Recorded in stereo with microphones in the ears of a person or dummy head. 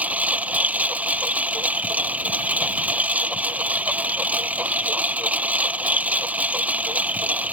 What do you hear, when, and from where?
0.0 s a lawn mower: 10° right (ahead or behind)